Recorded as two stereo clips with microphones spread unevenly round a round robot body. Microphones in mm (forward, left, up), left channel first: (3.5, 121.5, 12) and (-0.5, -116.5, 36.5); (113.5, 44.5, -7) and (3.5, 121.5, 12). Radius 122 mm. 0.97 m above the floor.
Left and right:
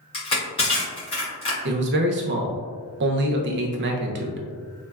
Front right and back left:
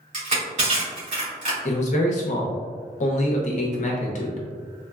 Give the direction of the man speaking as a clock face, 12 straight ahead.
2 o'clock.